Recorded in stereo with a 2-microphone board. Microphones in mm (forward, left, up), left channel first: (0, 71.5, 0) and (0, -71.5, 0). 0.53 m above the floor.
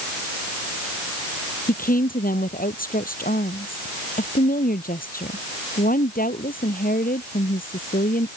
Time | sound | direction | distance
1.7 | a woman speaking | 80° left | ?